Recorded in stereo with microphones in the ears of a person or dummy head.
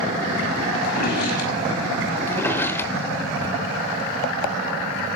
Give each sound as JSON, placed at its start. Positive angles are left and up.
{"t": 0.8, "sound": "a drawer", "side_deg": 55, "distance_m": 5.5}
{"t": 2.3, "sound": "a drawer", "side_deg": 10, "distance_m": 1.1}